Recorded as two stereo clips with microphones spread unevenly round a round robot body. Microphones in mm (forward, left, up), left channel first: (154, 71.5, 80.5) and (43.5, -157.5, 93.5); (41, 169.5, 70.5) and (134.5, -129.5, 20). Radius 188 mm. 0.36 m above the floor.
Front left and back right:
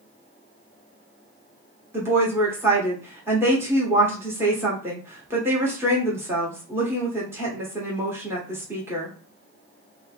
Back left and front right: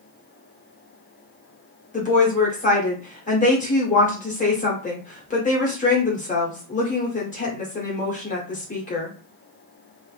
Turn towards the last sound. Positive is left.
turn(degrees=165)